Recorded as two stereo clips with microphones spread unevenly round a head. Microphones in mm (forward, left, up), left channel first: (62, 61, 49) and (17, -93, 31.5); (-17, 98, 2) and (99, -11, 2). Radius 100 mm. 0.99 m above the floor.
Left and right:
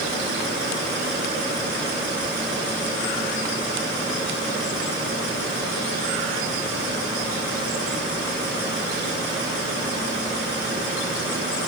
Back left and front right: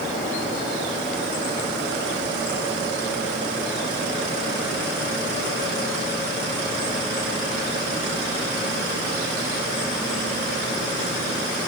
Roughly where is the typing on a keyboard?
I don't hear typing on a keyboard.